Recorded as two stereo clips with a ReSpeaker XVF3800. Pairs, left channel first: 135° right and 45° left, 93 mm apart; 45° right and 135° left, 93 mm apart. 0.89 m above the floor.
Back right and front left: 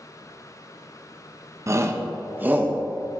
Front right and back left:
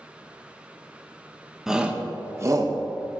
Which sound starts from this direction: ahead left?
A shout, at 1.7 s.